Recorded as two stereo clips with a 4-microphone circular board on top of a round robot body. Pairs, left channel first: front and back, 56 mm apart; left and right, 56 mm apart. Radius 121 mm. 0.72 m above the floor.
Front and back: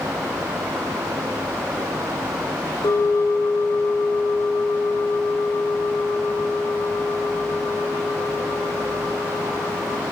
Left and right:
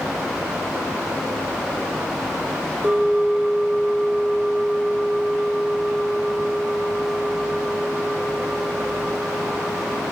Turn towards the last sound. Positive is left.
turn(degrees=-25)